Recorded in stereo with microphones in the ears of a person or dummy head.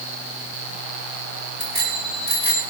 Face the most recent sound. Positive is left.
turn(degrees=-30)  # may be behind; listen again after turning